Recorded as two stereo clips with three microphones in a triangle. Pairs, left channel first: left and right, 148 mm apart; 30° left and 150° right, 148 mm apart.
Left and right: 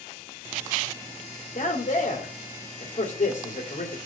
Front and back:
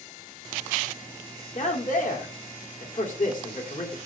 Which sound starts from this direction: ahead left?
A man speaking, at 1.6 s.